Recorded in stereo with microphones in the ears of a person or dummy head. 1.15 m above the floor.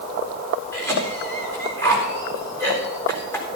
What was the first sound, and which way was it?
A cough, 10° left (ahead or behind).